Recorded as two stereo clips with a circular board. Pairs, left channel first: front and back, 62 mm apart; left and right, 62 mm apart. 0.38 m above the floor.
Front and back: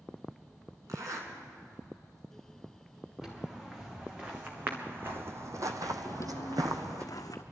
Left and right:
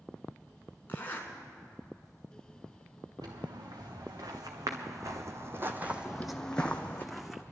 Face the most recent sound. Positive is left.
turn(degrees=-5)